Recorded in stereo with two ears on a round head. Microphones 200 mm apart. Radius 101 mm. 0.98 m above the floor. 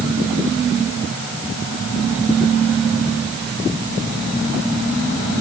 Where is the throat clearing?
I don't hear throat clearing.